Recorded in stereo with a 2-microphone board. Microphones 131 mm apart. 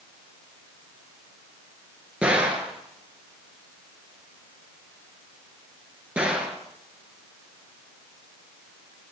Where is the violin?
I don't hear a violin.